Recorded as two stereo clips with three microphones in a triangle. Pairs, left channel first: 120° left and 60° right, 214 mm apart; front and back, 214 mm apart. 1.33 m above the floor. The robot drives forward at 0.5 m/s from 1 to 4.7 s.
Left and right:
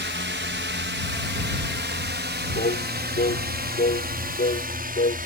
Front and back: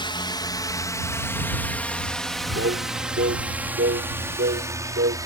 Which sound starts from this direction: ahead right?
A drone, at 0.0 s.